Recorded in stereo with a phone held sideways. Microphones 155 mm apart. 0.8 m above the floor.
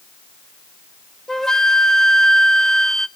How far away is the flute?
About 0.5 m.